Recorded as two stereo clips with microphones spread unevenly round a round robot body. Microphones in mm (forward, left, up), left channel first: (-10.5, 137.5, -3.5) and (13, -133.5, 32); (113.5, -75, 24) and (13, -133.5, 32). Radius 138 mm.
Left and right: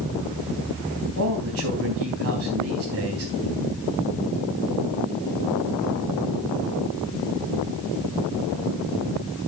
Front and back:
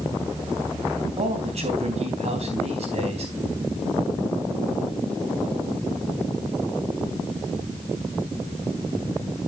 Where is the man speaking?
125° right, 3.5 m.